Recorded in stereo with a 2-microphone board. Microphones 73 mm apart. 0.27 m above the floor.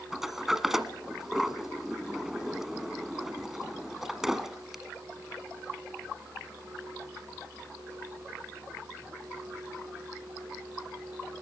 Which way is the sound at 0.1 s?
5° right (ahead or behind).